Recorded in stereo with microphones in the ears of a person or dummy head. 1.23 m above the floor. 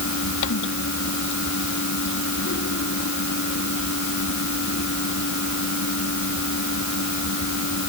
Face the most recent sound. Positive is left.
turn(degrees=60)  # may be behind; listen again after turning